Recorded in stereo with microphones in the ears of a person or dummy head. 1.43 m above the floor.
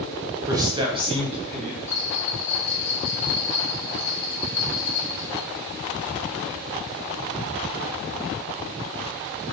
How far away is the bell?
About 1.7 m.